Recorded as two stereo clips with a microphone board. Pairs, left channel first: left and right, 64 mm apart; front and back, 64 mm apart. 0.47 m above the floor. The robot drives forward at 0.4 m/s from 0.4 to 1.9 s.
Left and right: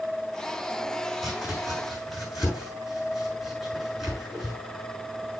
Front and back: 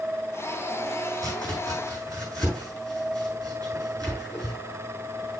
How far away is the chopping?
About 8 m.